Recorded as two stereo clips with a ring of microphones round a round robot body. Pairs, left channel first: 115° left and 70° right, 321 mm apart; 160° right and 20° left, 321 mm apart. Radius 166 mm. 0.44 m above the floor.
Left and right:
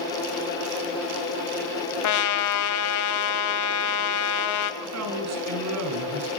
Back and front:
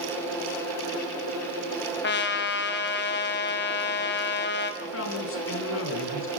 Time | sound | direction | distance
2.0 | a trumpet | 145° left | 1.7 m
4.8 | a man speaking | 105° right | 4 m